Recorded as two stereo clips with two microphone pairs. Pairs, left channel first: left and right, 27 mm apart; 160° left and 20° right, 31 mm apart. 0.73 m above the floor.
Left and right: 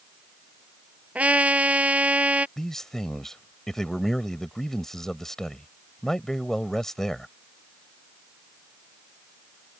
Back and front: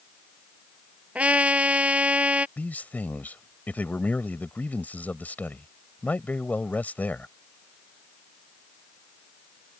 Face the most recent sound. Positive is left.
turn(degrees=170)